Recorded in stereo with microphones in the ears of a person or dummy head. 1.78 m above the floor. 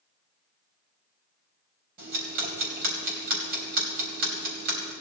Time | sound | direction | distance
2.0 | ticking | 50° right (ahead or behind) | 3.5 m